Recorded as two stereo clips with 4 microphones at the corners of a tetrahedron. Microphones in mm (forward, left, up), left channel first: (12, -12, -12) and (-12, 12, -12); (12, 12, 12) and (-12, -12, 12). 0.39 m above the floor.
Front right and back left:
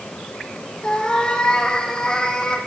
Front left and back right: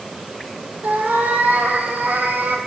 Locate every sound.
0.8 s a cat meowing: 110° right, 1.9 m